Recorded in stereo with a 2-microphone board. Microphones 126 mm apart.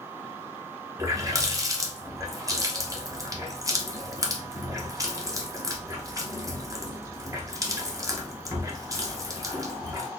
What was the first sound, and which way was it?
A running tap, 25° right (ahead or behind).